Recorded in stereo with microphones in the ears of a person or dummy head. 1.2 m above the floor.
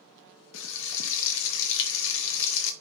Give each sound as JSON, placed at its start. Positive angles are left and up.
{"t": 0.5, "sound": "frying", "side_deg": 65, "distance_m": 0.8}